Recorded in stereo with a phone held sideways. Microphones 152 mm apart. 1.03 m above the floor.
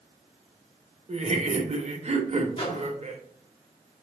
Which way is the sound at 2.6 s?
35° left (ahead or behind).